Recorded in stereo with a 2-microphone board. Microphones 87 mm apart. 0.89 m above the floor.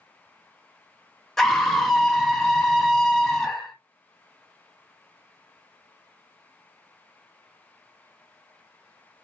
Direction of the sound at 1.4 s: 5° left (ahead or behind).